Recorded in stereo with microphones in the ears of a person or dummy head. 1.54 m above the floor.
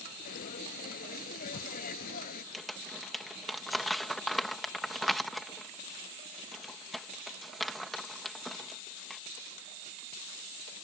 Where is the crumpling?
Centre (ahead or behind).